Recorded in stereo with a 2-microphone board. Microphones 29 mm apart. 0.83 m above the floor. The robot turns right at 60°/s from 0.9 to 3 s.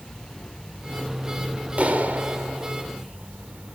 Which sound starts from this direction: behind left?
An insect, at 0.0 s.